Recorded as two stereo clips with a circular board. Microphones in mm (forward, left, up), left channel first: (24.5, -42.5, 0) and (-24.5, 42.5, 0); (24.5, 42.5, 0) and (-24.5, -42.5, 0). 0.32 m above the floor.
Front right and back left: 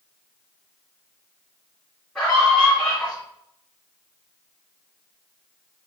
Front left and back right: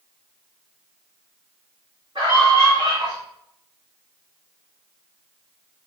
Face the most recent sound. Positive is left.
turn(degrees=-140)